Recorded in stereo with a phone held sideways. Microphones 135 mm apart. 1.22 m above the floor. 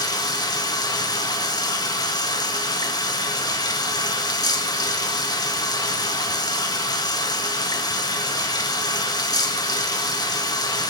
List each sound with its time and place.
0.0 s running water: 30° left (ahead or behind), 1.5 m